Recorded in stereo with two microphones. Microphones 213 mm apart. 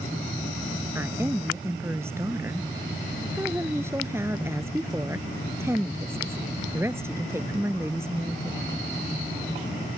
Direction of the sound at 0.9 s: 10° right (ahead or behind).